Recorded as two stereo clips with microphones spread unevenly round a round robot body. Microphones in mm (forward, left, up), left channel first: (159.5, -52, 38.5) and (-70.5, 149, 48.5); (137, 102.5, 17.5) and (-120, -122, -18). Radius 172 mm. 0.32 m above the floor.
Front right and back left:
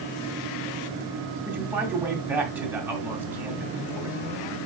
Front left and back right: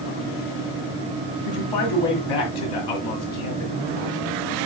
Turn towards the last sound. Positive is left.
turn(degrees=55)